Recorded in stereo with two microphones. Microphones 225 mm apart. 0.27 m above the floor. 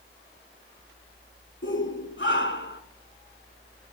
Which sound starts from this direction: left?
A shout, at 1.6 s.